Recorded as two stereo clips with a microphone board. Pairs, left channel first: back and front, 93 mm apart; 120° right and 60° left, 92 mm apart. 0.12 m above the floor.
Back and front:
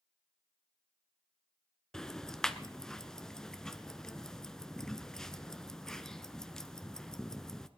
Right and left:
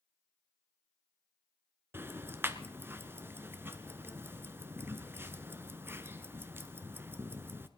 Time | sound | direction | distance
1.9 | ticking | 100° left | 0.9 m